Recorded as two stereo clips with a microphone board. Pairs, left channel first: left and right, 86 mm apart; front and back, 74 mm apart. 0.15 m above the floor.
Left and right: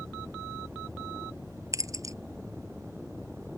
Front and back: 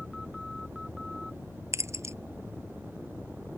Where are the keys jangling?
135° right.